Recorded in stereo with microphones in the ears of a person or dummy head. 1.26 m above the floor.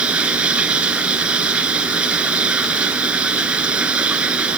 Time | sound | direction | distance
0.0 | running water | 10° right (ahead or behind) | ?